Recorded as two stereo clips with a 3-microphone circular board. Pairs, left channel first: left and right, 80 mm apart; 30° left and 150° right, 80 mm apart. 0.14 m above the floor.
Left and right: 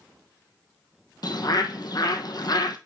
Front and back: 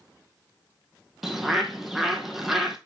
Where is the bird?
120° left, 1.0 m.